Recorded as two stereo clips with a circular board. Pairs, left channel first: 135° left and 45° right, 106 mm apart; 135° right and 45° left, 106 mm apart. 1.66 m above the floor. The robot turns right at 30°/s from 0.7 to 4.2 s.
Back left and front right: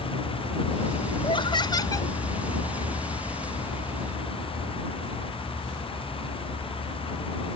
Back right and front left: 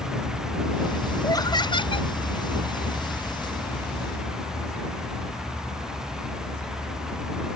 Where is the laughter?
170° left; by 2.1 s 165° right.